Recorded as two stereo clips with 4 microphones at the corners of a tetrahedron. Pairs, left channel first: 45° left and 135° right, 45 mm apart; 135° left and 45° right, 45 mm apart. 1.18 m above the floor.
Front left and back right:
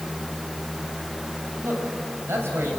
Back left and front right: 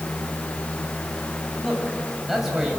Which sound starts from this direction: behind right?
A man speaking, at 1.6 s.